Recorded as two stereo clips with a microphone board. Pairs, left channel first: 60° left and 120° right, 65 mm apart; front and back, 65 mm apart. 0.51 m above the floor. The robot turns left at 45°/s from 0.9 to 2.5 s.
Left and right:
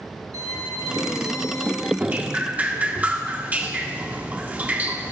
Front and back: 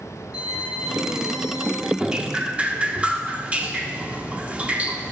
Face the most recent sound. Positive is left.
turn(degrees=-140)